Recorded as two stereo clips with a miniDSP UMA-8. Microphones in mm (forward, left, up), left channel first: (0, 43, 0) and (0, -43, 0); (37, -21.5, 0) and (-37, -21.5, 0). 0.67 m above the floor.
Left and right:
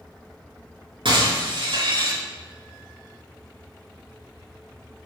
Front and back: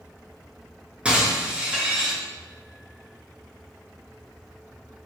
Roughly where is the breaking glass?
Right.